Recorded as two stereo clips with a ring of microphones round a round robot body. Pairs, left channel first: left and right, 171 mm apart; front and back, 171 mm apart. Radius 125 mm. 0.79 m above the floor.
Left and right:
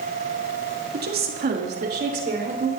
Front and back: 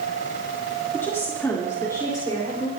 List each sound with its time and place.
0.9 s a woman speaking: 80° right, 2.0 m; by 2.7 s 75° right, 4 m